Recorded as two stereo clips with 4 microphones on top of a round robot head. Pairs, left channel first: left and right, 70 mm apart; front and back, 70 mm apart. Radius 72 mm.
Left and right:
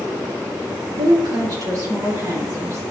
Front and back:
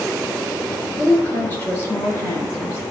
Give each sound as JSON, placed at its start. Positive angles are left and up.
{"t": 1.0, "sound": "a woman speaking", "azimuth_deg": -75, "distance_m": 3.5}